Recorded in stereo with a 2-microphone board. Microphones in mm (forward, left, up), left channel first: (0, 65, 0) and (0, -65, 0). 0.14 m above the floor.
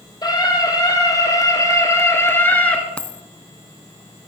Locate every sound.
0.2 s a scream: 30° left (ahead or behind), 5 m; by 2.8 s 10° left (ahead or behind), 2 m
3.0 s a dropped coin: 10° left (ahead or behind), 0.6 m